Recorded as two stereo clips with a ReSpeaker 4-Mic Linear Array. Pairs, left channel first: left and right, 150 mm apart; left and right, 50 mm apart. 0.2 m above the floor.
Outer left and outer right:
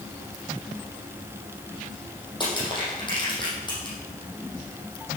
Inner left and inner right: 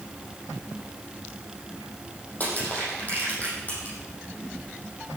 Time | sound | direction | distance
2.4 | crushing | 30° left (ahead or behind) | 6 m